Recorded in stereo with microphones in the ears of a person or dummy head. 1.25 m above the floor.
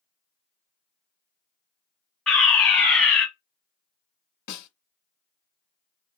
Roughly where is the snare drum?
Left.